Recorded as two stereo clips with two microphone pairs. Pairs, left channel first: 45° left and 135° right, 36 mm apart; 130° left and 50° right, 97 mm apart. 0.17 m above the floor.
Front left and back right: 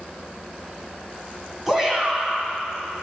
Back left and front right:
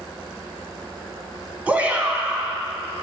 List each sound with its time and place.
1.7 s a shout: 80° right, 1.2 m